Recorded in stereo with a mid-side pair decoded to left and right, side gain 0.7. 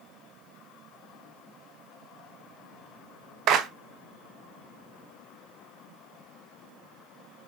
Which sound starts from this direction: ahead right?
A clap, at 3.5 s.